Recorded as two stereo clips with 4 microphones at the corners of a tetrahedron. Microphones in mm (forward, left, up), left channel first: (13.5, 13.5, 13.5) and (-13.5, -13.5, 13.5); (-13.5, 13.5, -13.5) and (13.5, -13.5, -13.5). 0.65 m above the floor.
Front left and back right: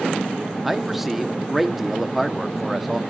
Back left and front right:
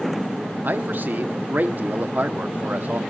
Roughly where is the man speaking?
Ahead right.